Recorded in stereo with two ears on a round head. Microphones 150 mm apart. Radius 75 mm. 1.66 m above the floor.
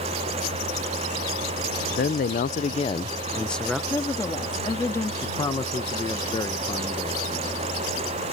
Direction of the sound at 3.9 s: 15° left (ahead or behind).